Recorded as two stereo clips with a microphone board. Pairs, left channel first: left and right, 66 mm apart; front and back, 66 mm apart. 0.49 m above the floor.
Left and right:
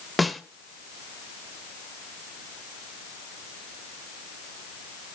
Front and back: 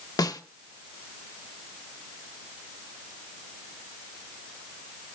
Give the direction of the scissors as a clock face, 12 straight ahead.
I don't hear scissors.